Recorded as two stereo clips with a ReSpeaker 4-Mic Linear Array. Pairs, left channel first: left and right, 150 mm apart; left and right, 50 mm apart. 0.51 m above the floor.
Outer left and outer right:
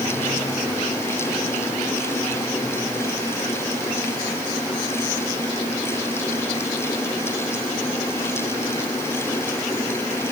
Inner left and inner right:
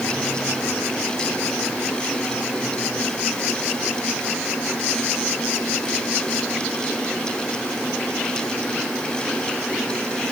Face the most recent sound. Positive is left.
No sound to turn to.